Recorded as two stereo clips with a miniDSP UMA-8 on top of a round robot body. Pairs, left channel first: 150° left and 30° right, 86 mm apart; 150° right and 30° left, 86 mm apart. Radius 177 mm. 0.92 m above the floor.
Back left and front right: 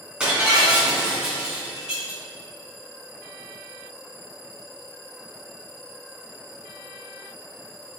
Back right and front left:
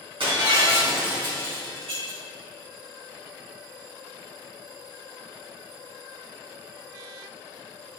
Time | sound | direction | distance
0.2 | breaking glass | 50° left | 3 m